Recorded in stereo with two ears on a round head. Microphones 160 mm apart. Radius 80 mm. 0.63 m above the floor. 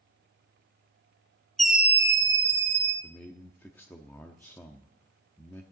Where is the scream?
Centre (ahead or behind), 0.8 m; by 2.9 s 25° right (ahead or behind), 1.6 m.